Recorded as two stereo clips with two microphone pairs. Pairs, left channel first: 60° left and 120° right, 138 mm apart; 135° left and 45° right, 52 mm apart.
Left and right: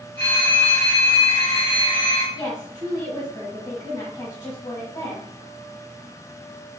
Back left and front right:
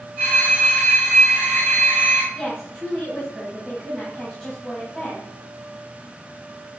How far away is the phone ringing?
About 1.8 m.